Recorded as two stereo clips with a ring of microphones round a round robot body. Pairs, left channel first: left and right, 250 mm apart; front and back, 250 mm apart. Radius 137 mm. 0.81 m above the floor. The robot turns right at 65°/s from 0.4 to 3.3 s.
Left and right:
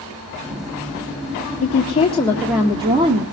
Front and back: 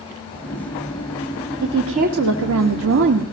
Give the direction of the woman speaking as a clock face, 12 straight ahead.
8 o'clock.